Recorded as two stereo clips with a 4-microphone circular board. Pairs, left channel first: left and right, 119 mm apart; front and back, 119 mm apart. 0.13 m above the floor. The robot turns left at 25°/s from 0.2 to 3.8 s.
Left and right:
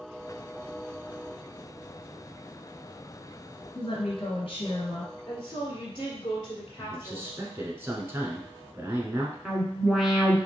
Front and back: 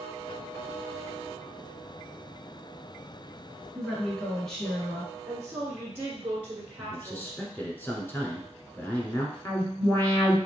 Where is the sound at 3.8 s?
85° left, 2.5 m.